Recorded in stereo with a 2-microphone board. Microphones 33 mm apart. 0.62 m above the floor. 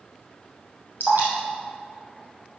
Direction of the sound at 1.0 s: 70° right (ahead or behind).